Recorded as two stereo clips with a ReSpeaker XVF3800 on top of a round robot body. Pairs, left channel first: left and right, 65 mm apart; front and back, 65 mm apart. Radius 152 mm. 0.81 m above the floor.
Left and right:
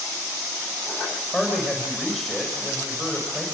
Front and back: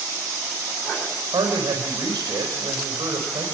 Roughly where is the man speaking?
Behind.